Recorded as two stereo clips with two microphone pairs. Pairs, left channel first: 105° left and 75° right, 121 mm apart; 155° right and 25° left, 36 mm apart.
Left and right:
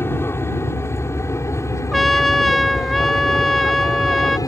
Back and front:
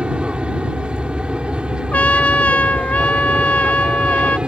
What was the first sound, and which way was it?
An aircraft, 55° left.